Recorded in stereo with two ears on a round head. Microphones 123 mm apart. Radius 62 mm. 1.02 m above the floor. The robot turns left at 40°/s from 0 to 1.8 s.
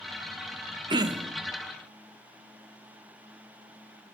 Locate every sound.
0.9 s throat clearing: 35° right (ahead or behind), 1.2 m; by 1.3 s 15° right (ahead or behind), 1.2 m